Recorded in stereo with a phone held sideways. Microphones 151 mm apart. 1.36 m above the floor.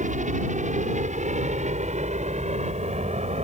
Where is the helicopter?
55° right (ahead or behind); by 3.4 s 45° right (ahead or behind).